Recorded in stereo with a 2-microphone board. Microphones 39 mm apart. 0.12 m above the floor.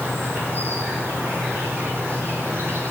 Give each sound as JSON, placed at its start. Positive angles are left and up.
{"t": 0.0, "sound": "an insect", "side_deg": -85, "distance_m": 10.0}